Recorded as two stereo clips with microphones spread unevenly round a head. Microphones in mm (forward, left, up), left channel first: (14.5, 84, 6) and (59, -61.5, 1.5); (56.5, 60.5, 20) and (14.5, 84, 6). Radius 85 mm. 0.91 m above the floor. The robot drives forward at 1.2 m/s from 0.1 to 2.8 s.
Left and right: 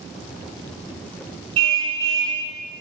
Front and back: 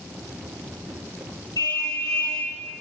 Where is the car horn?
95° right, 5.5 m; by 2.4 s 105° right, 6 m.